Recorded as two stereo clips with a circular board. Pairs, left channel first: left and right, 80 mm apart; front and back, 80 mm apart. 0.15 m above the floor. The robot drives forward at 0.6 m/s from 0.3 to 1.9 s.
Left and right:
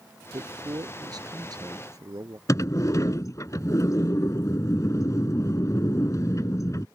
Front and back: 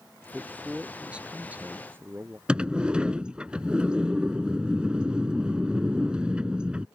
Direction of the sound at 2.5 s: 105° left.